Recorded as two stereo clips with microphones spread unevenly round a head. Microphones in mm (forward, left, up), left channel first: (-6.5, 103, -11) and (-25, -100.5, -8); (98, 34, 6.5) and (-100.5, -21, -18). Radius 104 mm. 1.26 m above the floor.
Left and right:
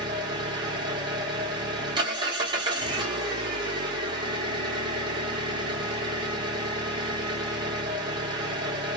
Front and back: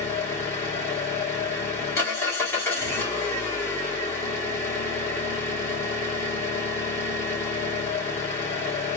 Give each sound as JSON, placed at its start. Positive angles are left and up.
{"t": 0.0, "sound": "an engine running", "azimuth_deg": -45, "distance_m": 0.9}